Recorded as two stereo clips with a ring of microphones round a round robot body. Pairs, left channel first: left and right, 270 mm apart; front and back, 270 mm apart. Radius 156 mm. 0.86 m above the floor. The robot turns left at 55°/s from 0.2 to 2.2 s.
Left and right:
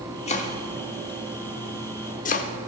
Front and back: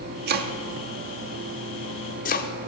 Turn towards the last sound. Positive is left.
turn(degrees=45)